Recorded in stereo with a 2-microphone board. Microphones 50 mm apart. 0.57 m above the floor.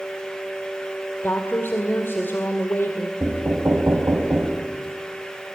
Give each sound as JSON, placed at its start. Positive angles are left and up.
{"t": 1.2, "sound": "a woman speaking", "side_deg": 55, "distance_m": 2.0}
{"t": 3.2, "sound": "knocking", "side_deg": -60, "distance_m": 3.5}